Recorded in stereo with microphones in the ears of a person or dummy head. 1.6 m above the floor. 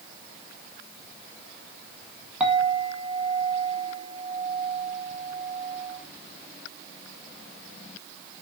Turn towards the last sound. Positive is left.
turn(degrees=-5)  # may be behind; listen again after turning